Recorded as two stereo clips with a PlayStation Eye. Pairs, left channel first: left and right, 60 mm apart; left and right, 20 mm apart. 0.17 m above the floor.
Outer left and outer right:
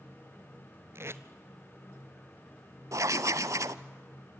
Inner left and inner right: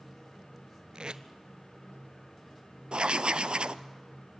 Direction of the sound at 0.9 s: 55° right (ahead or behind).